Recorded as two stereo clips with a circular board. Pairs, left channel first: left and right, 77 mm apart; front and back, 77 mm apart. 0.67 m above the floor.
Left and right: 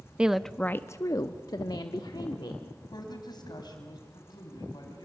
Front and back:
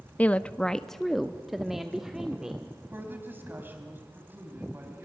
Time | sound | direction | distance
0.2 | a woman speaking | 35° right | 0.5 m
2.9 | a woman speaking | 115° left | 4 m